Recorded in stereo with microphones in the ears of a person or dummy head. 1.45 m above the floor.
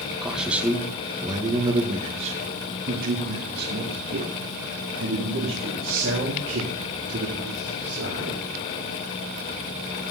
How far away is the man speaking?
About 2 m.